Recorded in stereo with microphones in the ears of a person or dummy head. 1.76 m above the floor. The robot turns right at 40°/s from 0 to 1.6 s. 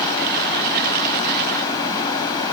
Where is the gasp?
No gasp in this recording.